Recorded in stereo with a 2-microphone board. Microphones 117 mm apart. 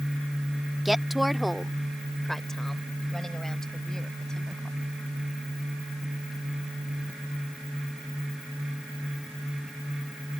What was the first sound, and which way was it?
A woman speaking, 5° right (ahead or behind).